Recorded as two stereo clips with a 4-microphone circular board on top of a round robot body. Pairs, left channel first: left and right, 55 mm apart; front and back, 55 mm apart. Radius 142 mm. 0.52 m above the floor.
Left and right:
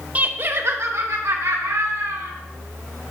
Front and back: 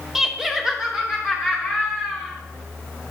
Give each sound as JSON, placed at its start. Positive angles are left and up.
{"t": 0.1, "sound": "laughter", "azimuth_deg": -105, "distance_m": 0.7}